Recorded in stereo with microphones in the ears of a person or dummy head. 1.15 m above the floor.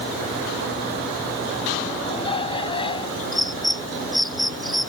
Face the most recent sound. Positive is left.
turn(degrees=-5)  # may be behind; listen again after turning